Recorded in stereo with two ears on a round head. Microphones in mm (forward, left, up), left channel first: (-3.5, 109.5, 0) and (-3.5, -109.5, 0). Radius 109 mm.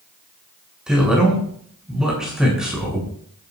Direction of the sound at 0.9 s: 5° right (ahead or behind).